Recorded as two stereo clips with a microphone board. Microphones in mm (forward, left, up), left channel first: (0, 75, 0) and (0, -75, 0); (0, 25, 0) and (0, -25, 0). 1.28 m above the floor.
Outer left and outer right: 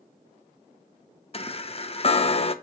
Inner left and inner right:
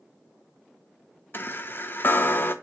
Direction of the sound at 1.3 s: 40° left (ahead or behind).